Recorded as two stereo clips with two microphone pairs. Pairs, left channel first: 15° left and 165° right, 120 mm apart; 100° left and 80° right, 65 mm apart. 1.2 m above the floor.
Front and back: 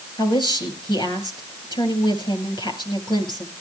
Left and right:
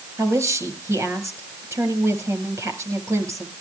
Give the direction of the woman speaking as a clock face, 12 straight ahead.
1 o'clock.